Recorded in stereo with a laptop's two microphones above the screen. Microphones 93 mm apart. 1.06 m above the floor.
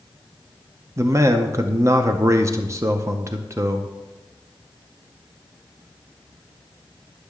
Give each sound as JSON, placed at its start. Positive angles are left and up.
{"t": 1.0, "sound": "a man speaking", "side_deg": -30, "distance_m": 0.5}